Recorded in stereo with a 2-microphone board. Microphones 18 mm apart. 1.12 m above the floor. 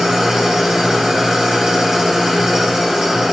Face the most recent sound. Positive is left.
turn(degrees=-45)  # may be behind; listen again after turning